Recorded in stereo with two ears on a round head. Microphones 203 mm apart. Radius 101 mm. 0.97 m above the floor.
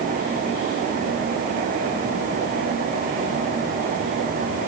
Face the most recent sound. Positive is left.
No sound to turn to.